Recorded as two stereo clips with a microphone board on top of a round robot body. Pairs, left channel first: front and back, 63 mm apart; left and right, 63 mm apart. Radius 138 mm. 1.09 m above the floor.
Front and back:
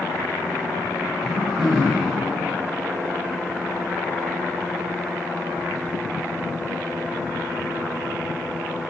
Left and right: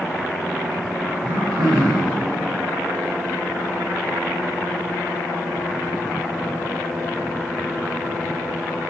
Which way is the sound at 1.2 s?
90° right.